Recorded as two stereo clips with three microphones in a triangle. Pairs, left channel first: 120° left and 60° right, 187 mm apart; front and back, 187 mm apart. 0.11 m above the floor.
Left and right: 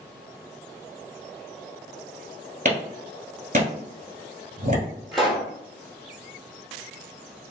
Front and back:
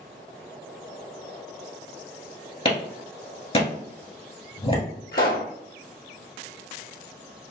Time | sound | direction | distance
2.6 | a clap | 45° right | 1.3 m
5.1 | a pop | 30° left | 1.2 m